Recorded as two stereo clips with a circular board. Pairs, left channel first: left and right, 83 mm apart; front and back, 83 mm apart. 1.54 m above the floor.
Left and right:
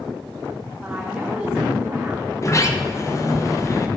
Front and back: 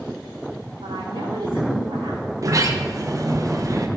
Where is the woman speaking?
170° right, 4 m.